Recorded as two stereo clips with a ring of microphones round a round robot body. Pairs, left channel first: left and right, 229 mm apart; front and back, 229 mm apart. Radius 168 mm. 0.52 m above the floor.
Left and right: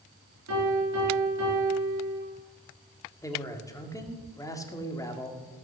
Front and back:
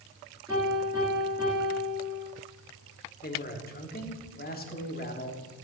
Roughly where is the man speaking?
Ahead.